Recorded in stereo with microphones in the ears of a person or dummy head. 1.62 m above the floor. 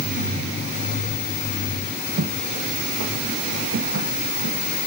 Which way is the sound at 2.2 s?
55° right (ahead or behind).